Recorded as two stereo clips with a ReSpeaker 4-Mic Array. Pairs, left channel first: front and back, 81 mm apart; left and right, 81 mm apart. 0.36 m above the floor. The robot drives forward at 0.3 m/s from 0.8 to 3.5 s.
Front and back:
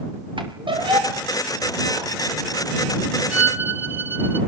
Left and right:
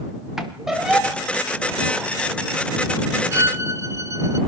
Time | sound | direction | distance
0.4 | a squeak | 175° right | 4.5 m
3.3 | a violin | 120° right | 1.7 m